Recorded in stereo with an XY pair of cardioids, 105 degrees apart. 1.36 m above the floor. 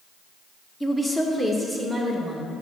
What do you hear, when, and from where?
0.8 s a woman speaking: 15° left, 0.9 m; by 2.5 s straight ahead, 1.8 m